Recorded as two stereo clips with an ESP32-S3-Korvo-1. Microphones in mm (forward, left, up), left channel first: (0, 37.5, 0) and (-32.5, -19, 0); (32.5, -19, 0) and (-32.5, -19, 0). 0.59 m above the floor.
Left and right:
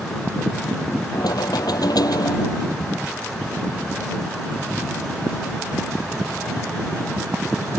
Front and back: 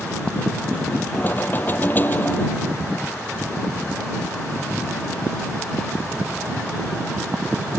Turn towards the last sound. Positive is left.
turn(degrees=60)